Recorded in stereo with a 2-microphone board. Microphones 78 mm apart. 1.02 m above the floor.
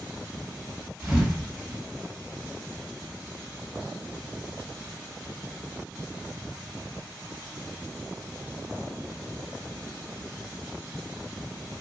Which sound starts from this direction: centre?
A thud, at 1.0 s.